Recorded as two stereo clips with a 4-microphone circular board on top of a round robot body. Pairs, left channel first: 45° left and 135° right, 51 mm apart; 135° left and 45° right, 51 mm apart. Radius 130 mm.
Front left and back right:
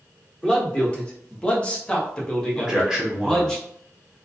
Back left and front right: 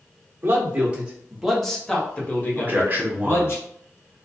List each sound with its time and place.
0.4 s a man speaking: 15° right, 1.1 m; by 3.6 s 120° left, 1.5 m
2.6 s a man speaking: 65° right, 1.2 m